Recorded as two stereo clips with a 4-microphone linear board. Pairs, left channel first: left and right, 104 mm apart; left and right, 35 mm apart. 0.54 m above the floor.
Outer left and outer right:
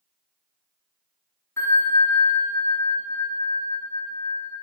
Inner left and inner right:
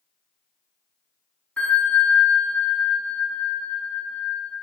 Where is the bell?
30° left (ahead or behind), 1.8 m.